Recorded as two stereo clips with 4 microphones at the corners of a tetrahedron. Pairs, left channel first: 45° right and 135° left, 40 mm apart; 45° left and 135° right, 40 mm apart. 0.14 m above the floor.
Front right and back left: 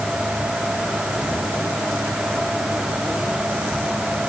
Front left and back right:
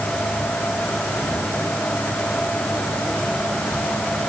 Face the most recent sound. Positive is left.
No sound to turn to.